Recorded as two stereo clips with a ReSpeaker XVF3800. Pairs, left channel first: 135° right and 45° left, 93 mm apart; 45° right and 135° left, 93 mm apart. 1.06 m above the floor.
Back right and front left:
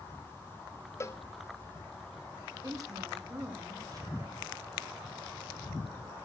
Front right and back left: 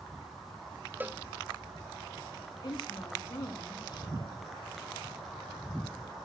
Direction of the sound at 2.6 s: 5° right.